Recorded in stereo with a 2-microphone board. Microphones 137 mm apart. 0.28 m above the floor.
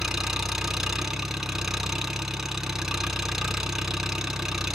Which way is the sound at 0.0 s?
5° right (ahead or behind).